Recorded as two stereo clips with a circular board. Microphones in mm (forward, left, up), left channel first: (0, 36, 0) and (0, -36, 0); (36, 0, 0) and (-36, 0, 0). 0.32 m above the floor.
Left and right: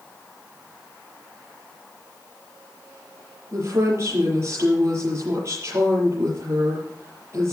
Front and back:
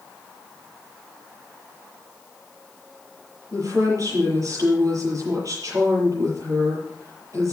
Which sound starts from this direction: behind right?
A woman speaking, at 3.5 s.